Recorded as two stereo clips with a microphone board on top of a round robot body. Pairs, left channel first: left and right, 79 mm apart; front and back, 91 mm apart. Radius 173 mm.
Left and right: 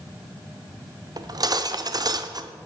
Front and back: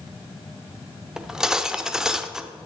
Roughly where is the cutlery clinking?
Right.